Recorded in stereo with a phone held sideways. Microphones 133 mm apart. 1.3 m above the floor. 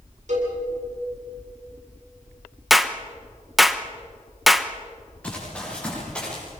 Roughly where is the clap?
Centre.